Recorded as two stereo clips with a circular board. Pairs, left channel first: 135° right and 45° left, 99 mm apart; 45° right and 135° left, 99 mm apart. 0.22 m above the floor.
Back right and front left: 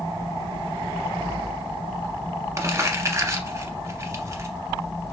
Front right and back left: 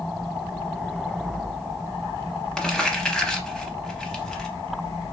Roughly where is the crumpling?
Ahead left.